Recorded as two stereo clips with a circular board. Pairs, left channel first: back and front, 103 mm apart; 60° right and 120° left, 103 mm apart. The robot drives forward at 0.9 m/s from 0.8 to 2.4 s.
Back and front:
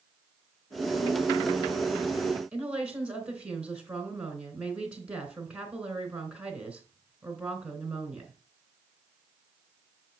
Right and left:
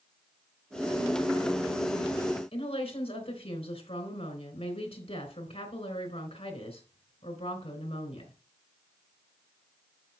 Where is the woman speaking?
80° right, 3 m.